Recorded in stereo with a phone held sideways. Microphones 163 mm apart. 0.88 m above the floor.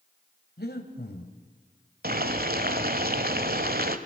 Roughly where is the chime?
I don't hear a chime.